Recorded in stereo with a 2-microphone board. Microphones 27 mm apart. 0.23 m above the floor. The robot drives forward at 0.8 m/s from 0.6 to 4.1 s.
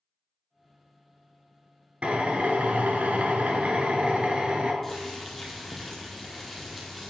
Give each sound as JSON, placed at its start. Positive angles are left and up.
{"t": 2.0, "sound": "a drill", "side_deg": -50, "distance_m": 1.3}
{"t": 4.8, "sound": "boiling", "side_deg": 5, "distance_m": 2.0}